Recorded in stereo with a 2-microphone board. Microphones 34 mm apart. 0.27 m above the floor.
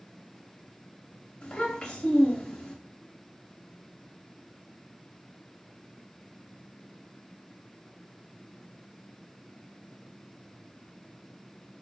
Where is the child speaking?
25° left (ahead or behind), 0.5 m.